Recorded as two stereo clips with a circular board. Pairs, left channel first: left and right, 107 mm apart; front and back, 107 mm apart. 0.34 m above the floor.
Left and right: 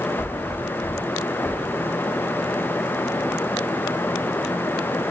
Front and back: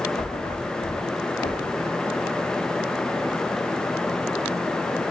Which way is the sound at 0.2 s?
10° left.